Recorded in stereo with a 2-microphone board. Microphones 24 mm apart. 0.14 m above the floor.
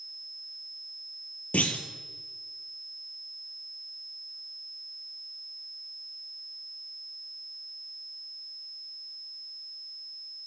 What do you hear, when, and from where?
1.5 s a clunk: 75° left (ahead or behind), 0.5 m